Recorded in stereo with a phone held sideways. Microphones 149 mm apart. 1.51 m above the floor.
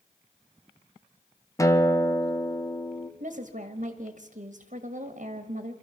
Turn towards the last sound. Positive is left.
turn(degrees=-60)  # may be behind; listen again after turning